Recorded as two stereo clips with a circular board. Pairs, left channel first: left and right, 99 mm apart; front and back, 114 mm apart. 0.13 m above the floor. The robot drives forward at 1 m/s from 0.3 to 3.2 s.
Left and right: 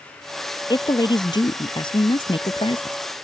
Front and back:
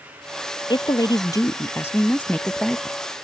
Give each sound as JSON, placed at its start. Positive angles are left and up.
{"t": 0.7, "sound": "a woman speaking", "azimuth_deg": 45}